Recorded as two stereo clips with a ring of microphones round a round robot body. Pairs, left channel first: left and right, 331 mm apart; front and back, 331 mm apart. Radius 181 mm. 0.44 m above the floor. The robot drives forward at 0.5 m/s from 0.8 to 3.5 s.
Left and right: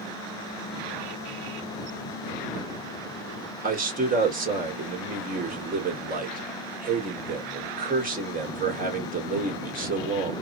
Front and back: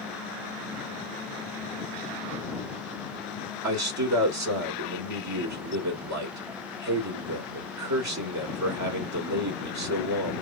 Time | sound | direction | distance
3.6 | a man speaking | 150° right | 1.9 m